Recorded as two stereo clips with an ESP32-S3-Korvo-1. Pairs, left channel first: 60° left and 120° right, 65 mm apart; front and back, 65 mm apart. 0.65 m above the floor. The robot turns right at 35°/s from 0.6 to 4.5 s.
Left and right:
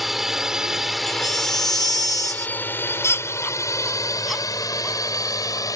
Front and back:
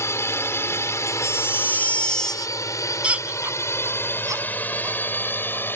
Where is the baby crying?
35° left; by 5.0 s 160° left.